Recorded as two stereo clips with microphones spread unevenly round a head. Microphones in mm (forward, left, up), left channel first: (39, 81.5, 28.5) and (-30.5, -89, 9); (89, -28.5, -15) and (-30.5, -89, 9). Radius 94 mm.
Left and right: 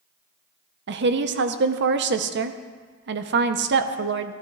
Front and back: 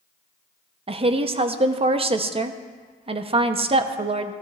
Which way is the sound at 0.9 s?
105° right.